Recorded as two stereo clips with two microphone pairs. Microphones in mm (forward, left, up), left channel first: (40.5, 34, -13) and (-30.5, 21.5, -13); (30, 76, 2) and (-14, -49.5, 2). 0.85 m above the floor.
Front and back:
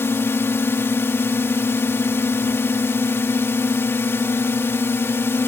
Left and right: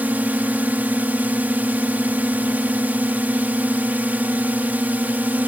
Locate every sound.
0.0 s a drone: 35° right